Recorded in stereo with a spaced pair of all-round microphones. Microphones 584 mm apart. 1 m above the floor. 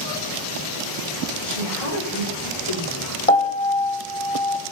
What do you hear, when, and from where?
1.4 s a woman speaking: 60° left (ahead or behind), 3 m
3.3 s a piano: 70° left (ahead or behind), 1.4 m